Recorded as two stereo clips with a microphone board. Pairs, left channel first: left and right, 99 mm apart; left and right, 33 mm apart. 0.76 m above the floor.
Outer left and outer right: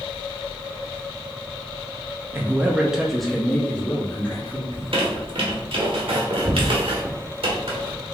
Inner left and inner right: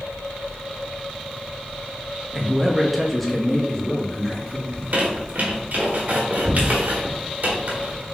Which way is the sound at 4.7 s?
70° right (ahead or behind).